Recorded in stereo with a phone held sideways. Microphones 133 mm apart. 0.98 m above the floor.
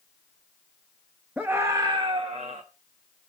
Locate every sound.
1.4 s a scream: 10° right (ahead or behind), 1.0 m; by 2.6 s 60° right (ahead or behind), 1.2 m